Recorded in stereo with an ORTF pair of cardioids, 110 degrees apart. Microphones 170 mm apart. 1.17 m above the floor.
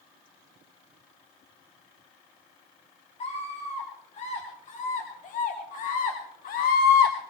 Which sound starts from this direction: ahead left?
A scream, at 3.2 s.